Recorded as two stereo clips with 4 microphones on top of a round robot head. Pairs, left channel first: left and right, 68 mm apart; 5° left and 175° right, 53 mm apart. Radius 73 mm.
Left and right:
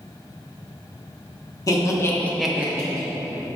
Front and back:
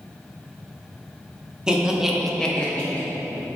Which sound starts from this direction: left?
Laughter, at 1.7 s.